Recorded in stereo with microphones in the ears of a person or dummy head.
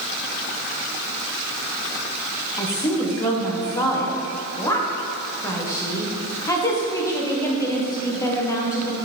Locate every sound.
2.6 s a woman speaking: 15° left (ahead or behind), 1.0 m